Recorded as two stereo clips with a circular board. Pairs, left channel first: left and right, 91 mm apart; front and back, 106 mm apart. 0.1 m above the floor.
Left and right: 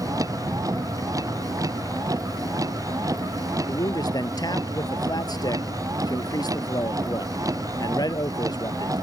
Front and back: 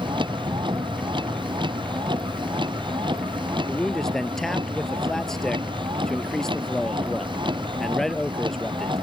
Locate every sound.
0.0 s a vehicle: 140° right
3.7 s a man speaking: 85° left